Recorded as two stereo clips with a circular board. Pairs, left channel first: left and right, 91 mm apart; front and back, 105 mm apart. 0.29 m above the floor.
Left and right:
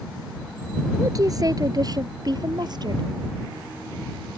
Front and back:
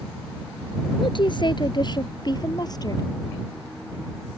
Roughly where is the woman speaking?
Ahead right.